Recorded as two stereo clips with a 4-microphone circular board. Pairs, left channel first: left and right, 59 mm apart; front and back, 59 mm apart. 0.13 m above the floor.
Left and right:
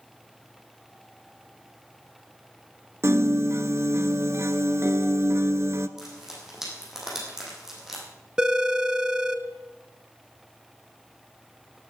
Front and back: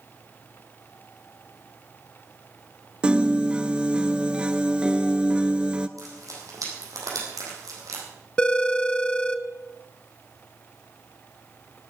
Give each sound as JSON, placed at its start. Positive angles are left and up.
{"t": 3.0, "sound": "a piano", "azimuth_deg": -115, "distance_m": 0.6}
{"t": 6.0, "sound": "frying", "azimuth_deg": -175, "distance_m": 5.0}
{"t": 8.4, "sound": "a phone ringing", "azimuth_deg": -40, "distance_m": 0.7}